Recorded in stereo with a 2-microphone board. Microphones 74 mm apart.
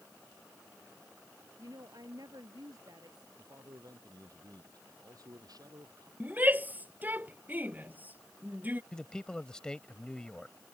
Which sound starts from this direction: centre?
A man speaking, at 8.9 s.